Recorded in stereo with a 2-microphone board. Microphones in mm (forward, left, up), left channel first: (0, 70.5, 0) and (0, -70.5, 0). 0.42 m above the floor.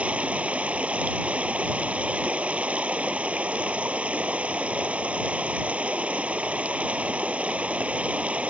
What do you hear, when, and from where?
0.0 s running water: 10° right (ahead or behind)